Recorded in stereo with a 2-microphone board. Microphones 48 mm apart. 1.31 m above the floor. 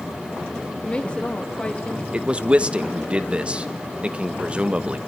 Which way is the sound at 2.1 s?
25° right (ahead or behind).